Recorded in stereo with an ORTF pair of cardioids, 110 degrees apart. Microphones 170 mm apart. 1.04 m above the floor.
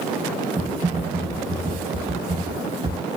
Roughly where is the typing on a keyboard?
Ahead right.